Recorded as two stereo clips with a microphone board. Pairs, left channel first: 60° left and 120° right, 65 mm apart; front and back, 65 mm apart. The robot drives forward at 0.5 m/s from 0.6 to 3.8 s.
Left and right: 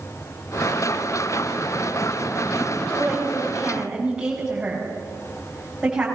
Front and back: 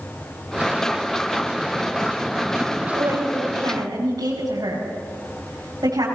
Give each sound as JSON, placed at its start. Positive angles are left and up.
{"t": 2.7, "sound": "a woman speaking", "azimuth_deg": 160, "distance_m": 6.0}